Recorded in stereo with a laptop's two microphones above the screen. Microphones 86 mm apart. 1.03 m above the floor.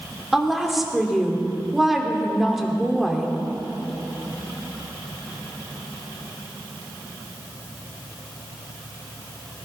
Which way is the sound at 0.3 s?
Centre (ahead or behind).